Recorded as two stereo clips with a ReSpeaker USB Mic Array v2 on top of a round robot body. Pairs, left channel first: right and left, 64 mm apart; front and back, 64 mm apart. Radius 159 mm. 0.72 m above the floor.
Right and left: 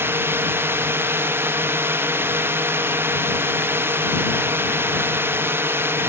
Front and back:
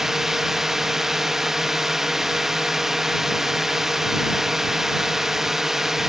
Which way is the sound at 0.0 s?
100° left.